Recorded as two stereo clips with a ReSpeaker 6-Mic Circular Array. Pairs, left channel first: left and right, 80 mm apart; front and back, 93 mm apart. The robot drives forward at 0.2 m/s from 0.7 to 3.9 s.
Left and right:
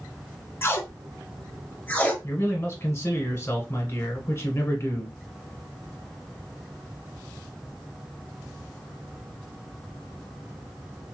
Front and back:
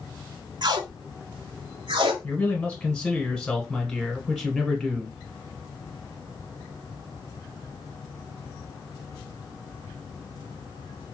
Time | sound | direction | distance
0.6 | tape being pulled | 145° left | 0.5 m
2.2 | a man speaking | 60° left | 1.2 m